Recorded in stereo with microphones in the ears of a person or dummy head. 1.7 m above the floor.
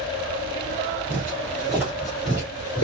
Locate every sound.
1.1 s footsteps: 15° right (ahead or behind), 1.9 m; by 2.8 s 15° left (ahead or behind), 1.7 m